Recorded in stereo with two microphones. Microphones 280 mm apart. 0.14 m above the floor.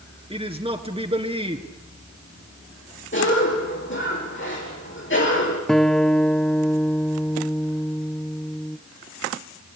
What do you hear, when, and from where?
0.3 s a man speaking: 20° right (ahead or behind), 2.5 m
3.1 s a cough: 45° left (ahead or behind), 5.5 m
5.7 s a guitar: centre (ahead or behind), 0.8 m